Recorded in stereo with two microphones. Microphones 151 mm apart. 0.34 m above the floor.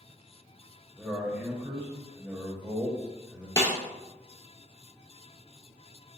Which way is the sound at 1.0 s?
15° right (ahead or behind).